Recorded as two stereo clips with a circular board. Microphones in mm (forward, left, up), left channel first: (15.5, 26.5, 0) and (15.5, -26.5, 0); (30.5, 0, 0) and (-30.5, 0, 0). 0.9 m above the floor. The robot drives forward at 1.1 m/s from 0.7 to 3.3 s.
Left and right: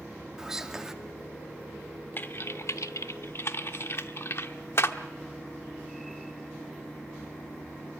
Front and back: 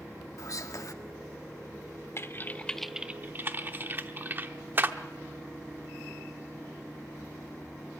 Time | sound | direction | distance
0.4 | whispering | 10° right | 2 m
2.2 | typing on a keyboard | 40° left | 1.1 m